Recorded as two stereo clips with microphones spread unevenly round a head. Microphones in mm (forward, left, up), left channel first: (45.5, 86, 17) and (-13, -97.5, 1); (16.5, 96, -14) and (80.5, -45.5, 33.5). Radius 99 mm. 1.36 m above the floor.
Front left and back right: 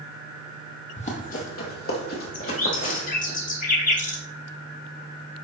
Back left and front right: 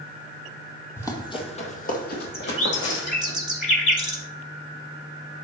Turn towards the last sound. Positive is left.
turn(degrees=25)